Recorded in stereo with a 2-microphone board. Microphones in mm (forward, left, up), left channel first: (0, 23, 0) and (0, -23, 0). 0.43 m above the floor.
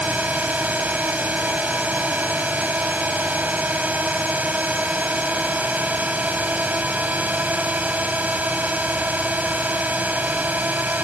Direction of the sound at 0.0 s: 35° right (ahead or behind).